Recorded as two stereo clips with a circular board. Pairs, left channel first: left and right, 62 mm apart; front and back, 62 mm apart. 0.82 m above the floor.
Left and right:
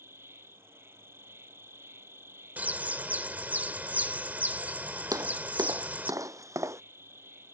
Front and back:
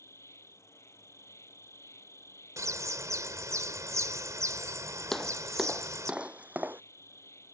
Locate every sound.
0.0 s an insect: 40° right
2.6 s a bird: 155° right
5.1 s footsteps: 85° right; by 6.8 s 125° right